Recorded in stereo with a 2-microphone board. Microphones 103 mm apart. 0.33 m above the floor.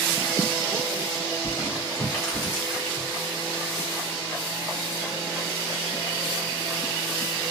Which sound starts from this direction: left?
Crumpling, at 1.4 s.